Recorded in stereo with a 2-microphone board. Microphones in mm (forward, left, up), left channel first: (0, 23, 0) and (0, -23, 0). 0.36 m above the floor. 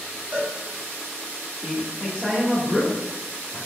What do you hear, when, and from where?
0.3 s a cowbell: 30° right (ahead or behind), 1.2 m
1.6 s a man speaking: 20° right (ahead or behind), 0.9 m